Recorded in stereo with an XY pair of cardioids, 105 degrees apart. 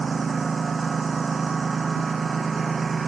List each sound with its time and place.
0.0 s a lawn mower: 35° right